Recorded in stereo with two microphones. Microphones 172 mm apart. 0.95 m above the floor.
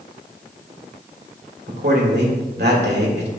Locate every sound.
1.7 s a man speaking: 75° right (ahead or behind), 2 m